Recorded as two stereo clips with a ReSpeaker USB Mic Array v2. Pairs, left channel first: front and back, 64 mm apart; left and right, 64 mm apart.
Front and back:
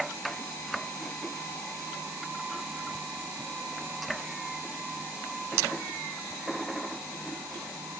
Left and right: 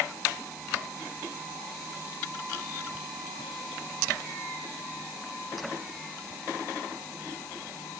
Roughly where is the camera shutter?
I don't hear a camera shutter.